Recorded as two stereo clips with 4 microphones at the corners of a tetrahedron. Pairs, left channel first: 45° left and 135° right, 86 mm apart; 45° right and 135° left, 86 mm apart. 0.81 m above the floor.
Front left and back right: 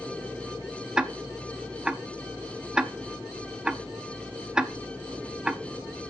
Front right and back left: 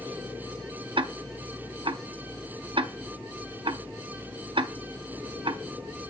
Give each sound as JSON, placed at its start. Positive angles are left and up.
{"t": 1.0, "sound": "ticking", "azimuth_deg": 145, "distance_m": 0.5}